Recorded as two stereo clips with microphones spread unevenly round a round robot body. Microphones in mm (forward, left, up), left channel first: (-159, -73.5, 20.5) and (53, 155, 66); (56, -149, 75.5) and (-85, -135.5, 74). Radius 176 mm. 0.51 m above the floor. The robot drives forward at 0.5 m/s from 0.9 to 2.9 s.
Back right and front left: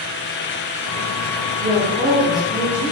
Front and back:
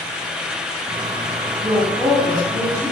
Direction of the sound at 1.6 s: 95° left.